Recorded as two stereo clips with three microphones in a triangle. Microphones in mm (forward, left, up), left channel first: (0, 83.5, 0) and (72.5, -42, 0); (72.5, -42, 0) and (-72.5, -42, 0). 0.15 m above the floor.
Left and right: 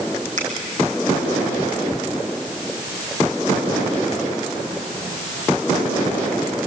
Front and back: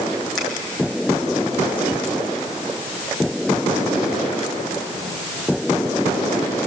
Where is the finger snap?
90° right, 5 m.